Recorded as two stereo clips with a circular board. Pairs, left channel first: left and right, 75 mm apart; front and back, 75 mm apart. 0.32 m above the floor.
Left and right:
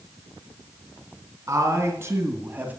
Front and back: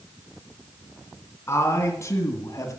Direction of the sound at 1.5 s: 50° right.